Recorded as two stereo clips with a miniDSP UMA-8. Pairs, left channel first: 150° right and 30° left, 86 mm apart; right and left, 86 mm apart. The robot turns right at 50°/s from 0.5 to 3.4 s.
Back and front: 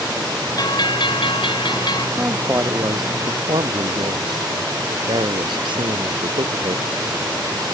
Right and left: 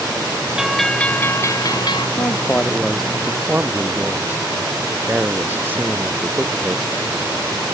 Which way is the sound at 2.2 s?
40° right.